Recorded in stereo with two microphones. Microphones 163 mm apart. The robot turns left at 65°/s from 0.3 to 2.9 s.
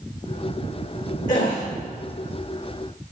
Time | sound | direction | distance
1.3 | a gasp | 55° left (ahead or behind) | 7.5 m